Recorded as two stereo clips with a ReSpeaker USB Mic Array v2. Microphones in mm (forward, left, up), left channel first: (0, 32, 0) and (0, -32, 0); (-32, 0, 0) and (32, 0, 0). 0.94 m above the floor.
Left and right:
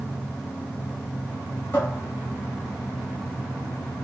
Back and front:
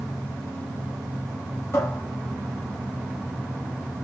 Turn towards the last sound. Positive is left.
turn(degrees=135)